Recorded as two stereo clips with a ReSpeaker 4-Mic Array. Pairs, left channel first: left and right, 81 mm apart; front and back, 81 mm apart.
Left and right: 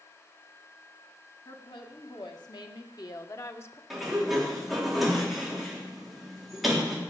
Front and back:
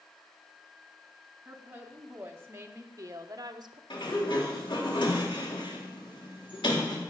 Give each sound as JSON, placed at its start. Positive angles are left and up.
{"t": 1.4, "sound": "a woman speaking", "azimuth_deg": 110, "distance_m": 2.5}
{"t": 3.9, "sound": "a sliding door", "azimuth_deg": 0, "distance_m": 3.5}